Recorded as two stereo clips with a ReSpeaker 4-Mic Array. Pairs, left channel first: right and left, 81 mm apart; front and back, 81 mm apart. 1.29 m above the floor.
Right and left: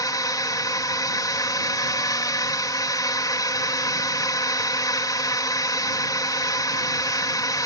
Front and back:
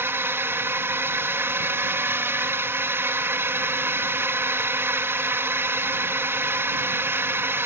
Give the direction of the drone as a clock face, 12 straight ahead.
4 o'clock.